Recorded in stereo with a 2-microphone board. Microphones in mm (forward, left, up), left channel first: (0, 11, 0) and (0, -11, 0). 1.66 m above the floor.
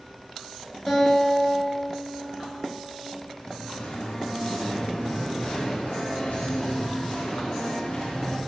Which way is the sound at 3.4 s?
75° left (ahead or behind).